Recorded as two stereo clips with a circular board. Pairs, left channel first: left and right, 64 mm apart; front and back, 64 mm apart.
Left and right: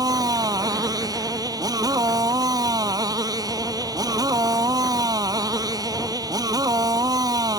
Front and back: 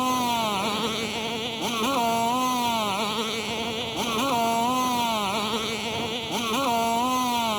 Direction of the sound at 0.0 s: 90° right.